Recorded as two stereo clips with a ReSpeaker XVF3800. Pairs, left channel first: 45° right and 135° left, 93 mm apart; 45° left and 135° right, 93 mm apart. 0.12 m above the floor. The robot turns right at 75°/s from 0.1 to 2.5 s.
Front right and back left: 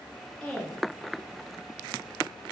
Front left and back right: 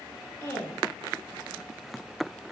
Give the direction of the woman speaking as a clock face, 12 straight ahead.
11 o'clock.